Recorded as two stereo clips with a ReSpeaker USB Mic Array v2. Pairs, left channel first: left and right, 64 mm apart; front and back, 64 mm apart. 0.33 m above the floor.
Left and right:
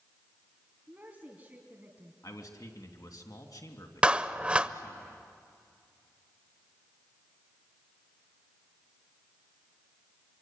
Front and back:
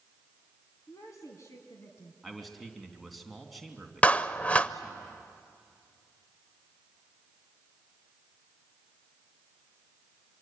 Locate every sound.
0.9 s a woman speaking: 25° right, 2.5 m
2.2 s a man speaking: 90° left, 3 m
4.0 s a clap: 35° right, 0.7 m